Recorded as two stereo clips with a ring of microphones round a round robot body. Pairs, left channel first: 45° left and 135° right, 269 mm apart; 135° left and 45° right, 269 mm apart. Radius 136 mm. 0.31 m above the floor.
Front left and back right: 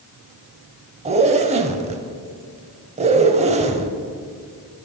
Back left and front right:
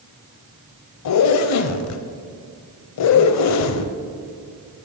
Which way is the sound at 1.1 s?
160° left.